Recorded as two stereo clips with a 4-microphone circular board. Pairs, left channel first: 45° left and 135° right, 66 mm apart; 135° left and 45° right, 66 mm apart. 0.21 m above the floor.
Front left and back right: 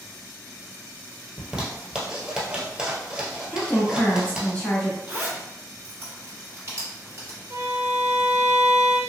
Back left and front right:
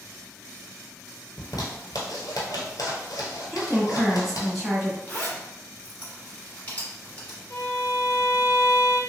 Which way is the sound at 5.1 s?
170° right.